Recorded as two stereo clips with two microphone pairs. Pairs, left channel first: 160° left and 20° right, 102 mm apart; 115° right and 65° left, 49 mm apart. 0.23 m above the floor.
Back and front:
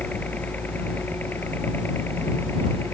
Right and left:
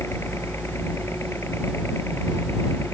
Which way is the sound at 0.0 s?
125° right.